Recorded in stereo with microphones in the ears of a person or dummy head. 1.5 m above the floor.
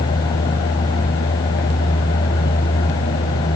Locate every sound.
Only background noise.